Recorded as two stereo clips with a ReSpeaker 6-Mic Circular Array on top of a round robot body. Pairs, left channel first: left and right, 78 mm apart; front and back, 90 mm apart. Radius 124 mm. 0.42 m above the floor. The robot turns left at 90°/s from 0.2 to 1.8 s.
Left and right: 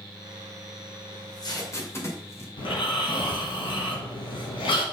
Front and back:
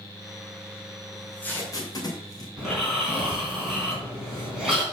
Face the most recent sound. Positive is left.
turn(degrees=95)